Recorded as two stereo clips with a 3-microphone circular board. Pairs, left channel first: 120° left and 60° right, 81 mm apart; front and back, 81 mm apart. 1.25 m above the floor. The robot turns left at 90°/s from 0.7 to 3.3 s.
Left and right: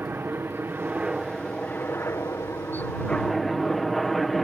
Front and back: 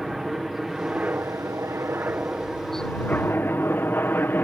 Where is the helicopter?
95° right; by 4.5 s 30° left.